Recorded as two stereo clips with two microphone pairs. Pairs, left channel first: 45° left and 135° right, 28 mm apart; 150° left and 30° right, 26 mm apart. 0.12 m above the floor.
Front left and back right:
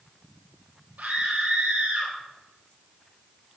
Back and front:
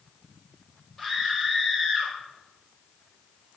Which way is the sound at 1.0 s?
130° right.